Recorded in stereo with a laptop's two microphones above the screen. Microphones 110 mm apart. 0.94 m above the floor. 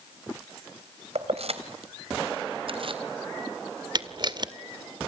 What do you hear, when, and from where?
1.1 s keys jangling: 75° right (ahead or behind), 3.5 m; by 3.0 s 55° right (ahead or behind), 3.5 m
4.0 s a camera shutter: 45° right (ahead or behind), 1.9 m